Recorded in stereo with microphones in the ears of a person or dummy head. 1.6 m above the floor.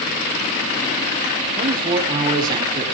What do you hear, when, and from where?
1.6 s a man speaking: 20° right (ahead or behind), 5 m